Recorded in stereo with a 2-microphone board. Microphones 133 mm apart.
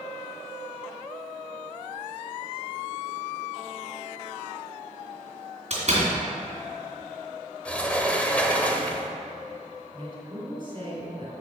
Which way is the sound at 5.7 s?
50° right (ahead or behind).